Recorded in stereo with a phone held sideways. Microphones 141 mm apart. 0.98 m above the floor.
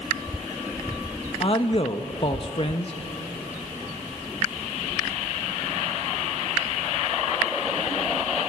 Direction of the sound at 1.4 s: 40° left (ahead or behind).